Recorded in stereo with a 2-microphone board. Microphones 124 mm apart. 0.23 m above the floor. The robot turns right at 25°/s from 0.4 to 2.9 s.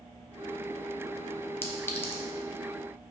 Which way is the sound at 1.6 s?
20° left (ahead or behind).